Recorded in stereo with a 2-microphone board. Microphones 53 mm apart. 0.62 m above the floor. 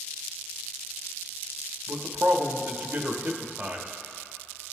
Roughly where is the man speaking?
Right.